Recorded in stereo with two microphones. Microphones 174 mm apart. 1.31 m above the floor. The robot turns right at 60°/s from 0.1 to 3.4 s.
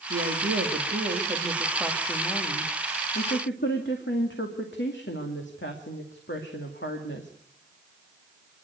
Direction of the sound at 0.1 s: 110° right.